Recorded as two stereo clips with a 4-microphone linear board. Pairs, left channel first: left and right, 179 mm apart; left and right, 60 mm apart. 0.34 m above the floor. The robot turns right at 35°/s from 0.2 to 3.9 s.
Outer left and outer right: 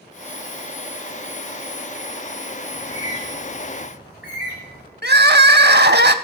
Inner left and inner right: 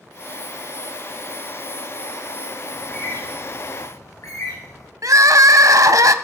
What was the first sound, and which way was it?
A bird, 25° left (ahead or behind).